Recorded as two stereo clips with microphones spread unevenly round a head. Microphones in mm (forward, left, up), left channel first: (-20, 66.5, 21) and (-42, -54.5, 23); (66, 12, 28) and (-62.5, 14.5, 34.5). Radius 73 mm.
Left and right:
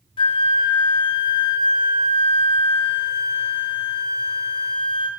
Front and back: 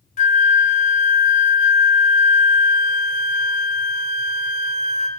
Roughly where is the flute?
Ahead left.